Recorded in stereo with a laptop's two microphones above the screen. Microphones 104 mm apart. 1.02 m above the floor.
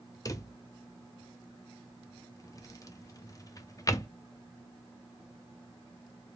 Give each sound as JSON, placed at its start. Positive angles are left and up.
{"t": 0.2, "sound": "a drawer", "side_deg": 35, "distance_m": 0.5}